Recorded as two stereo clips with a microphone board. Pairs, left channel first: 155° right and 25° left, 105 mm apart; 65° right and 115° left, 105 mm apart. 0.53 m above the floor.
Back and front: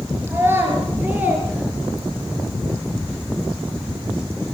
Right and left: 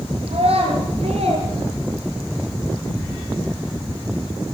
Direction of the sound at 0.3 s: 90° left.